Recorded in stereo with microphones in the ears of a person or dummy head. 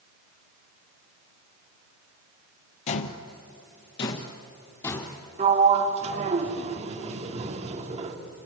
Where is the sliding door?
45° right (ahead or behind), 2 m.